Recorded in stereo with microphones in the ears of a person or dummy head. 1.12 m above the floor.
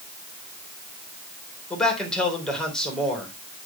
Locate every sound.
1.7 s a man speaking: 10° left (ahead or behind), 3.5 m